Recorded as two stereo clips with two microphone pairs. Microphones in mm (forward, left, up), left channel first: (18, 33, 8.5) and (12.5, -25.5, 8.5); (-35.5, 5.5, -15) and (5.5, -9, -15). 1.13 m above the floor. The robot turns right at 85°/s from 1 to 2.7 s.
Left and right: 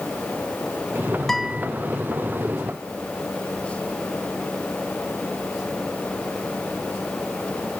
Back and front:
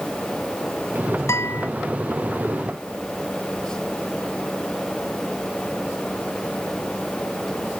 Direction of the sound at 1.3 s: 170° left.